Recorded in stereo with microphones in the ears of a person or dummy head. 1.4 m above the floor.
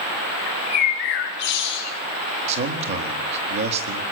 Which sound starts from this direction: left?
A bird, at 0.5 s.